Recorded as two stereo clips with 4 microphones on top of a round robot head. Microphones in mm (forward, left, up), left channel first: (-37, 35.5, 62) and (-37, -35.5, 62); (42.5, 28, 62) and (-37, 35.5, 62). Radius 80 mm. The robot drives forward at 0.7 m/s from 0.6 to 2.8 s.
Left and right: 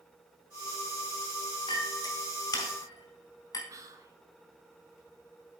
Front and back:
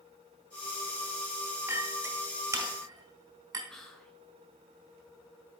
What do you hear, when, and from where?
1.7 s a clink: 115° left, 3 m; by 3.6 s 125° left, 3.5 m
3.7 s whispering: 85° right, 1.5 m